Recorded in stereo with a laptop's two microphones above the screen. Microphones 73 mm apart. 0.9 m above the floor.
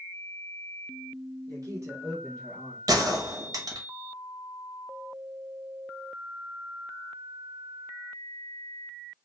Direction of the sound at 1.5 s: 60° right (ahead or behind).